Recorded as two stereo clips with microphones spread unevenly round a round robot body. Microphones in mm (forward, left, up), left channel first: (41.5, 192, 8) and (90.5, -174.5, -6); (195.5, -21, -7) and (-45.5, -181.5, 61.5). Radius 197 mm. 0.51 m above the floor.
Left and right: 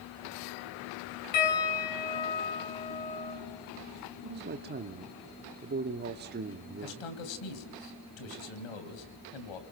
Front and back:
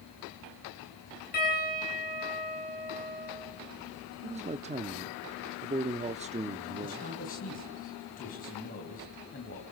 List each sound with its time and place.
1.3 s a piano: 95° left, 6.5 m
4.2 s a man speaking: 75° right, 0.8 m
6.8 s a man speaking: 95° left, 3 m